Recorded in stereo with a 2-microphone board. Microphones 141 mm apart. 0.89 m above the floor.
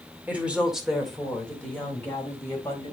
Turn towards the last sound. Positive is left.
turn(degrees=20)  # may be behind; listen again after turning